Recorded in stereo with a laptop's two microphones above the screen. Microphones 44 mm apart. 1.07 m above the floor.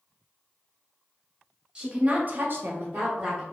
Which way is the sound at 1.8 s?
20° right (ahead or behind).